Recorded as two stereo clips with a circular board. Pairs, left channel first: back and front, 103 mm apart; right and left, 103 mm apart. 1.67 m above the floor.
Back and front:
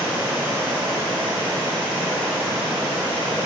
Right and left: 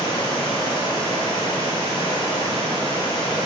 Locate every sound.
0.0 s running water: 70° right, 6 m